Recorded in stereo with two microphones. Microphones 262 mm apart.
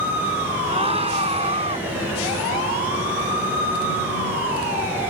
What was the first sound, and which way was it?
A scream, 20° right (ahead or behind).